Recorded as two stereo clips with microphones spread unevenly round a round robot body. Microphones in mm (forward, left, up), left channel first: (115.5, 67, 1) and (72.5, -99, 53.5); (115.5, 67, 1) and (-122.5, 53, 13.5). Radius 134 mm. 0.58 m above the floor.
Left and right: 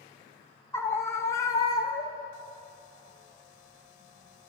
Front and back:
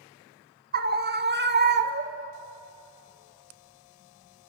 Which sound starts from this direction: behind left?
A scream, at 0.7 s.